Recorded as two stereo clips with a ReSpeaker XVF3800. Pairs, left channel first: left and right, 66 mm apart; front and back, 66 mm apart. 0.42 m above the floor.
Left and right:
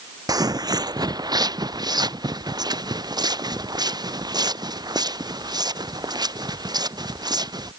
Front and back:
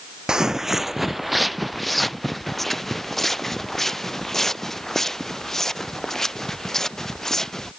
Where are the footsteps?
100° right; by 7.7 s 85° right.